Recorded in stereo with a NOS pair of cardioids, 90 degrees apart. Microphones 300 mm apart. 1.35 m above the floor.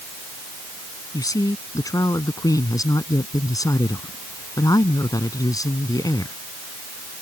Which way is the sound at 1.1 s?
10° left.